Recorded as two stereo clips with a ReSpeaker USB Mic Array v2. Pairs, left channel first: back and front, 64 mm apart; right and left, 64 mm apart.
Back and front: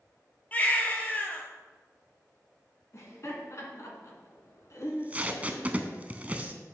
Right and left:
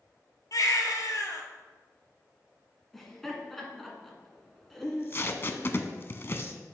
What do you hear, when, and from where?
0.5 s a baby crying: 115° right, 1.2 m
2.9 s laughter: 175° right, 1.9 m
4.8 s tape being pulled: 55° right, 0.6 m